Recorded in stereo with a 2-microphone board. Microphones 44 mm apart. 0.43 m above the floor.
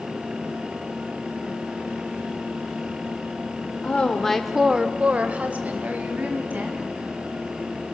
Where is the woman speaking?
30° left (ahead or behind), 1.1 m; by 6.9 s 45° right (ahead or behind), 3.5 m.